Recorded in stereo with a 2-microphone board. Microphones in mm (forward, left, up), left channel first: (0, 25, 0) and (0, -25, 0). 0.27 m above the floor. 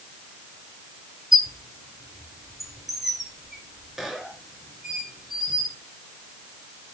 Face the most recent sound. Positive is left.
turn(degrees=-5)  # may be behind; listen again after turning